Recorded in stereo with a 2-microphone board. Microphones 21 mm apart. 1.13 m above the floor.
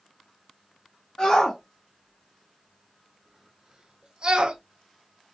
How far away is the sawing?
I don't hear sawing.